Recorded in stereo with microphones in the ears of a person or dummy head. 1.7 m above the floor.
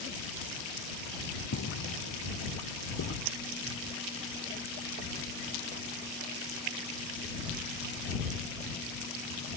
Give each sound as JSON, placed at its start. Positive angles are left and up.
{"t": 1.5, "sound": "footsteps", "side_deg": 75}
{"t": 3.2, "sound": "a dropped coin", "side_deg": -75}